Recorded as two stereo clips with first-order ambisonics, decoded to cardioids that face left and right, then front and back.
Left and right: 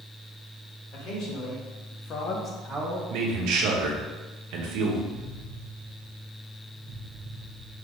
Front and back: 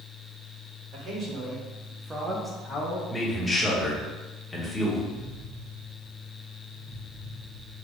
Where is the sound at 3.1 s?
80° right, 0.9 m.